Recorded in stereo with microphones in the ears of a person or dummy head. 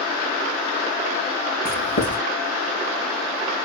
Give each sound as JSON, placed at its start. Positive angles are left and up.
{"t": 1.6, "sound": "writing", "side_deg": 55, "distance_m": 3.5}